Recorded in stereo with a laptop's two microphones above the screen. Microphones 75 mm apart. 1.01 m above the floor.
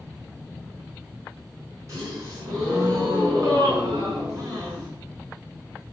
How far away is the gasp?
About 5.5 m.